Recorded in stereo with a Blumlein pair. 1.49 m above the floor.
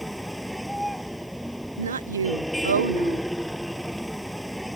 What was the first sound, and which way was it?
A vehicle, straight ahead.